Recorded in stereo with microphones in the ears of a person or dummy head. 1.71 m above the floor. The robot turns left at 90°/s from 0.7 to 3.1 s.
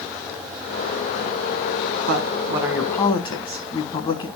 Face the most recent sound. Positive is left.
turn(degrees=150)